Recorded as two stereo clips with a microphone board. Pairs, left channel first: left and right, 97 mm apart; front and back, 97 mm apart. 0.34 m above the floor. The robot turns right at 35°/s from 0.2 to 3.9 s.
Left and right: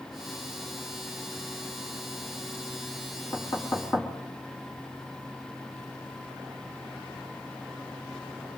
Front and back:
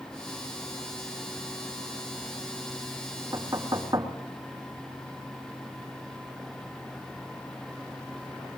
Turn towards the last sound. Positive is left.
turn(degrees=145)